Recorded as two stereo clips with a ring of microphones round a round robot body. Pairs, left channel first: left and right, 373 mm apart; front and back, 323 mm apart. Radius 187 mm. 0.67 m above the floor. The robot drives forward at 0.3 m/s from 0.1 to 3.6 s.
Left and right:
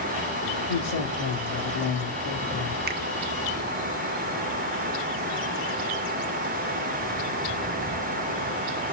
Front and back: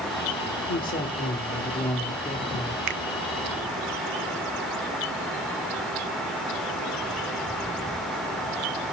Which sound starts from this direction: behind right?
A finger snap, at 2.9 s.